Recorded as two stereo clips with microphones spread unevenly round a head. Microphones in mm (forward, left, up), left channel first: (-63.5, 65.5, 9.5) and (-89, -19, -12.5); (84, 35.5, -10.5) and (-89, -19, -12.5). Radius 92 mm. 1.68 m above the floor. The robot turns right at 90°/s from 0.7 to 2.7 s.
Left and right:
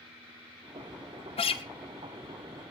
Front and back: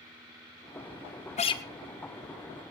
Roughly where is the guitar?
Left.